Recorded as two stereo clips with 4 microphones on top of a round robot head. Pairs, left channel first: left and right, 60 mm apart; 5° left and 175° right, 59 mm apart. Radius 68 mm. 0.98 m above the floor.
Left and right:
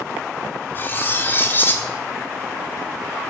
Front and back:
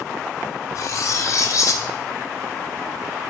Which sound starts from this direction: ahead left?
Cutlery clinking, at 0.8 s.